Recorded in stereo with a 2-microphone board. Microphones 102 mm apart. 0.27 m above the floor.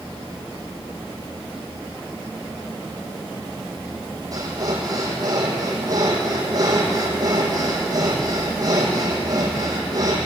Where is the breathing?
40° right (ahead or behind), 6.5 m.